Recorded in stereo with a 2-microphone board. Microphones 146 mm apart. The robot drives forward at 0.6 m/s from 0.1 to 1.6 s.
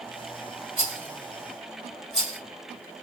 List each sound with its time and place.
0.8 s a rattle: 40° right (ahead or behind), 2 m; by 2.4 s 35° right (ahead or behind), 2 m